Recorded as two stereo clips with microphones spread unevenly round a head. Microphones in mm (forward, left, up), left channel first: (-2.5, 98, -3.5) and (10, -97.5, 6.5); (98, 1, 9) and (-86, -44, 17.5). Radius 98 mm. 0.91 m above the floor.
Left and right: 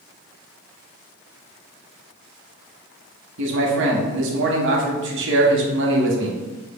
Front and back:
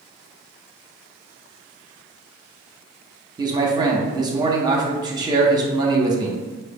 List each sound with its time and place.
3.4 s a man speaking: 100° right, 0.8 m